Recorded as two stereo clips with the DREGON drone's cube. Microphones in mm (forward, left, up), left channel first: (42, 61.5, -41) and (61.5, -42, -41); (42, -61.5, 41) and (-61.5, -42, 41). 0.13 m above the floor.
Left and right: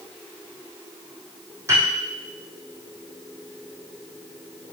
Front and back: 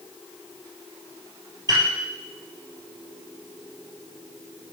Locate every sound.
1.7 s a piano: 140° right, 3 m